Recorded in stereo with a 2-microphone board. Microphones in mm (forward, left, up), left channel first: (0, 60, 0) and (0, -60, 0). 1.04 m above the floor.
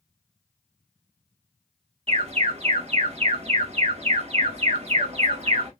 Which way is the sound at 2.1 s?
55° right (ahead or behind).